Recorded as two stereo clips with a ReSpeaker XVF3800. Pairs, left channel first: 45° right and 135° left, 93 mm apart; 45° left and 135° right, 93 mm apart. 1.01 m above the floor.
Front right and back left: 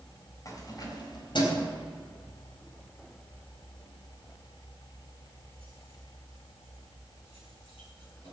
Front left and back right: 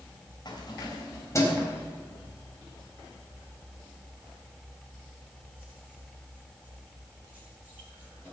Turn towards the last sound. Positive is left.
turn(degrees=-65)